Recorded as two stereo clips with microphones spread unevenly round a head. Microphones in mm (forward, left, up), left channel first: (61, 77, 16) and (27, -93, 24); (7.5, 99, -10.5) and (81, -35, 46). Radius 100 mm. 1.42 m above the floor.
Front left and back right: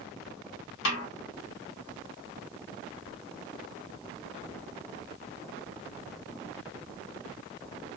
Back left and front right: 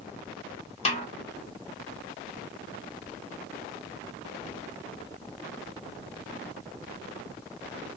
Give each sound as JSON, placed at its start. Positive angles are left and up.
{"t": 0.8, "sound": "a snare drum", "azimuth_deg": 75, "distance_m": 1.3}